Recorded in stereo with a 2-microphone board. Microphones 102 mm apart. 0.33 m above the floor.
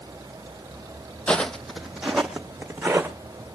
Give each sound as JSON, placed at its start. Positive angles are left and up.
{"t": 1.3, "sound": "footsteps", "side_deg": 10, "distance_m": 0.6}